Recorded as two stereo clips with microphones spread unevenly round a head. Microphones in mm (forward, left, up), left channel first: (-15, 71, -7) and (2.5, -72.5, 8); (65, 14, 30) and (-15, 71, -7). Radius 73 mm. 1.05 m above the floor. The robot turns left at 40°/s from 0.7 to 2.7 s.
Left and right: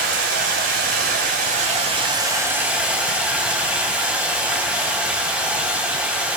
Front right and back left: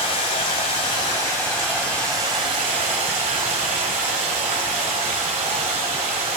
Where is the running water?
85° right, 3.5 m; by 6.4 s 165° right, 3.5 m.